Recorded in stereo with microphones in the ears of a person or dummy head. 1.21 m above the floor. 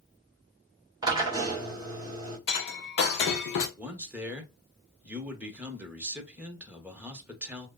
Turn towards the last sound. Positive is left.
turn(degrees=-5)  # may be behind; listen again after turning